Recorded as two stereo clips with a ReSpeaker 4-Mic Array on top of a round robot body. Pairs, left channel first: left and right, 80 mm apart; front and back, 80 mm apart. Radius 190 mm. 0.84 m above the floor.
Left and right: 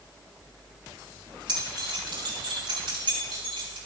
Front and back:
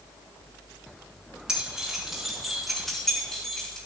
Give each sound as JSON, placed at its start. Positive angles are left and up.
{"t": 1.5, "sound": "keys jangling", "azimuth_deg": -100, "distance_m": 7.0}